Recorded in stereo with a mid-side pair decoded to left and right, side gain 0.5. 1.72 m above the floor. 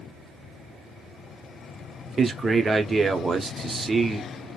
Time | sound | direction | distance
2.2 | a man speaking | 25° right | 0.8 m